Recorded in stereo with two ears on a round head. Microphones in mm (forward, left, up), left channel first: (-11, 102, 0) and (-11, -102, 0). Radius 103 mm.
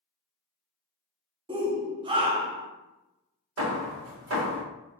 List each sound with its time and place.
1.5 s a shout: 20° right (ahead or behind), 0.5 m
3.6 s hammering: 65° right (ahead or behind), 0.9 m